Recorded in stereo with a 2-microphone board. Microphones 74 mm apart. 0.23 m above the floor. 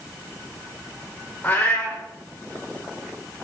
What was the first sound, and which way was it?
A cat meowing, 15° left (ahead or behind).